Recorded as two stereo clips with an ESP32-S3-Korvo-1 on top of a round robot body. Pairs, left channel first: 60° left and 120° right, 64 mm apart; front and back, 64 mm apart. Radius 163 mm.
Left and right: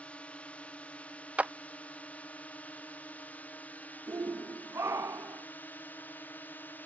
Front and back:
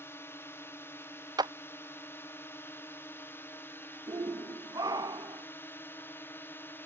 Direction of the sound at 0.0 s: 5° left.